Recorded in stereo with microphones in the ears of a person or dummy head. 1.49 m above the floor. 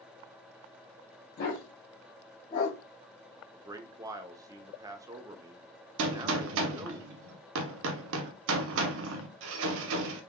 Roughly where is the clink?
I don't hear a clink.